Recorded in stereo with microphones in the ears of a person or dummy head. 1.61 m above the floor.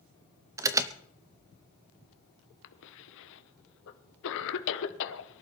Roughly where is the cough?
Left.